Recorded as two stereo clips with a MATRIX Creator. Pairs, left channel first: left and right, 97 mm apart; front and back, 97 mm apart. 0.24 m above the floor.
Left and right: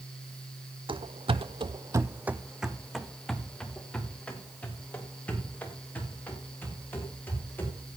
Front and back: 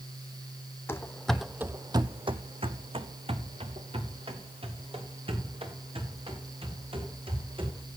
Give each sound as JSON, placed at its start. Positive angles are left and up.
{"t": 0.9, "sound": "running footsteps", "azimuth_deg": -65, "distance_m": 0.7}